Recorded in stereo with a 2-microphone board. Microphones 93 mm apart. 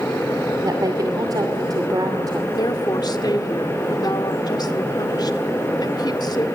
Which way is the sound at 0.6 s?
40° right (ahead or behind).